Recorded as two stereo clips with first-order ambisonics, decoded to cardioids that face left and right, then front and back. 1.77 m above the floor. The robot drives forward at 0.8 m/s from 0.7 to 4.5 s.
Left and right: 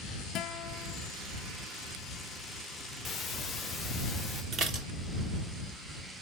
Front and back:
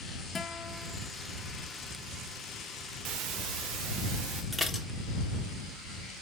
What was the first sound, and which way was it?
A guitar, 65° left.